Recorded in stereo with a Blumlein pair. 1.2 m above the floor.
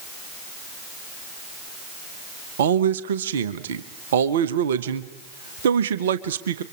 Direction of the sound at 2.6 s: 60° right.